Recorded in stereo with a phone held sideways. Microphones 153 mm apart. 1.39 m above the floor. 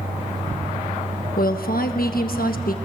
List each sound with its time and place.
0.0 s a fan: 55° right (ahead or behind), 2.5 m
1.4 s a woman speaking: 70° left (ahead or behind), 1.2 m